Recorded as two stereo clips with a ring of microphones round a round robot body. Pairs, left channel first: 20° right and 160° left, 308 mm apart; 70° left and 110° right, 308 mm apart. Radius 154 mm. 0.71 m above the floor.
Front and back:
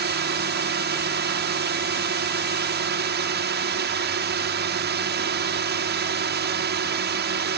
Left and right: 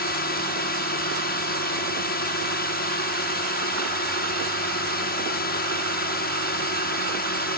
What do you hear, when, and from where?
0.0 s a drone: 115° left